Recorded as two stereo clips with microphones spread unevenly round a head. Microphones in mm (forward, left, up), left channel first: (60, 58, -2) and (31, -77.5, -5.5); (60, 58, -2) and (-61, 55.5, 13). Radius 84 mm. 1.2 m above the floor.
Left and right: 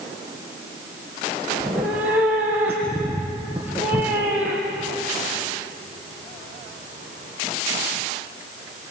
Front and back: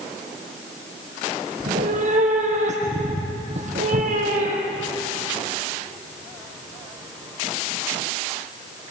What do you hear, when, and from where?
1.6 s a cat meowing: 175° left, 3.5 m